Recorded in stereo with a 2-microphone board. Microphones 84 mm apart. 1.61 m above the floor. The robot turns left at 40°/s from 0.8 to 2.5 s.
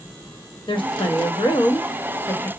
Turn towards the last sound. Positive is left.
turn(degrees=25)